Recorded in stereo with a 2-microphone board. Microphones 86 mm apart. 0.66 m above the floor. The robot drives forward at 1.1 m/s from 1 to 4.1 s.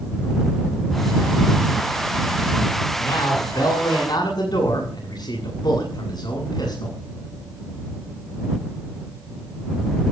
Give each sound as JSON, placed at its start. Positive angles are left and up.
{"t": 3.0, "sound": "a man speaking", "side_deg": 50, "distance_m": 9.0}